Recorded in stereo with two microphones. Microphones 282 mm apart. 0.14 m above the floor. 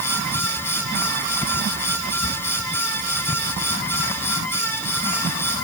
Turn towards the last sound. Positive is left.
No sound to turn to.